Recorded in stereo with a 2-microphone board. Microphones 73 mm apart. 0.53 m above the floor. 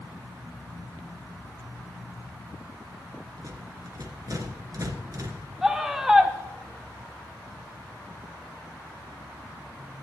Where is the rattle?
50° right (ahead or behind), 2.5 m.